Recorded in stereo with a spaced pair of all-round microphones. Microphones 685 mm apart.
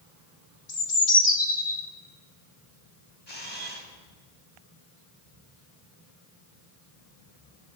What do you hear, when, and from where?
0.7 s a bird: 80° left, 2.0 m
3.3 s a camera shutter: 40° left (ahead or behind), 3.5 m